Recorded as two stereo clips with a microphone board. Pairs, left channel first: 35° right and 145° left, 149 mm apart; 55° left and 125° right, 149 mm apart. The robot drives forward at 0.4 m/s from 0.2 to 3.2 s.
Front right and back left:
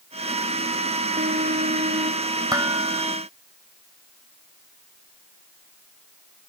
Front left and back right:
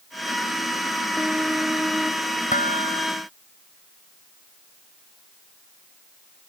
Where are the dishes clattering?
80° left.